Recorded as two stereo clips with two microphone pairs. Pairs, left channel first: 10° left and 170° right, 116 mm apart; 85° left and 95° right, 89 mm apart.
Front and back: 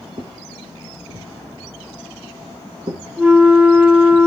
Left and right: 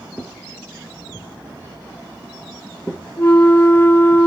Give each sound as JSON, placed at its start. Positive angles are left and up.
{"t": 0.2, "sound": "footsteps", "azimuth_deg": 170, "distance_m": 2.5}
{"t": 3.2, "sound": "a flute", "azimuth_deg": 120, "distance_m": 1.0}